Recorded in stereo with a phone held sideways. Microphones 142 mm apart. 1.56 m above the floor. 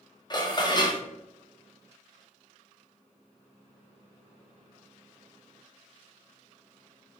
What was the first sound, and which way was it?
Dishes clattering, 30° left (ahead or behind).